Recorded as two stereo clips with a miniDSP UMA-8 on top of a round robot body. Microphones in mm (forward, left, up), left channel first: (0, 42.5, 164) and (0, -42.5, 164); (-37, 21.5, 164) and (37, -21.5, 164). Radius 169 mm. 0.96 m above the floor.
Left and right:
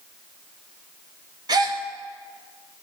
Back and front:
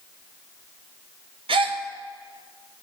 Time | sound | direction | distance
1.5 | a gasp | 45° right | 0.6 m